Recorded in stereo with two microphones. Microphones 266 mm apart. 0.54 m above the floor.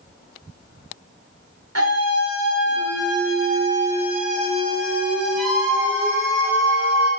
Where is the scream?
65° right (ahead or behind), 2.5 m; by 7.1 s 20° left (ahead or behind), 3.5 m.